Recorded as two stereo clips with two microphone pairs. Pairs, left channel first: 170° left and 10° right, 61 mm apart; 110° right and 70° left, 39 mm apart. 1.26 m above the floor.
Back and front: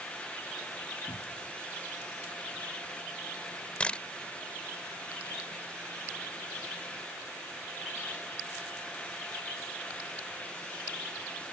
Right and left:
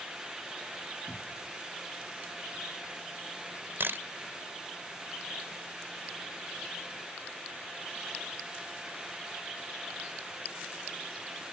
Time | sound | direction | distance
1.1 | a cupboard door | 165° left | ?
3.8 | a camera shutter | 100° left | ?